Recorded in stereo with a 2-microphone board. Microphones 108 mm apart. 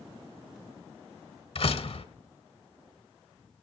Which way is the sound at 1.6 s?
60° left (ahead or behind).